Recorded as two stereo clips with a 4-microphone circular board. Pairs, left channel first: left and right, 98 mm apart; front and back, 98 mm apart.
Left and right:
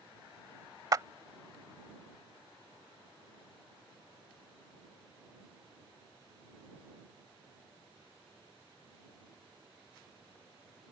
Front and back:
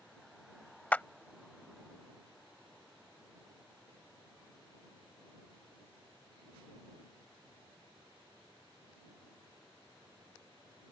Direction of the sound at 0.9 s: 65° right.